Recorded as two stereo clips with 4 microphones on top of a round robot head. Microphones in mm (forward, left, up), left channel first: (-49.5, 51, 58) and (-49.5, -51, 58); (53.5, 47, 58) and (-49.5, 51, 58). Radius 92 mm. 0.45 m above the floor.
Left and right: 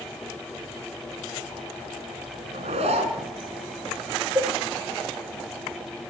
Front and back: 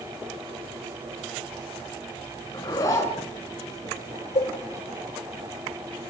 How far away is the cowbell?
About 1.9 m.